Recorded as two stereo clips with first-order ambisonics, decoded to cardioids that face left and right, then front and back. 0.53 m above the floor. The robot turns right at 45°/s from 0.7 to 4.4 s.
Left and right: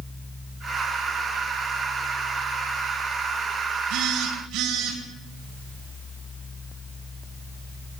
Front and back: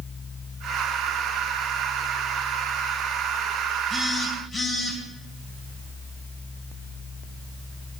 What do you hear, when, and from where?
3.9 s a phone buzzing: 115° right, 2.5 m; by 5.0 s 90° right, 2.5 m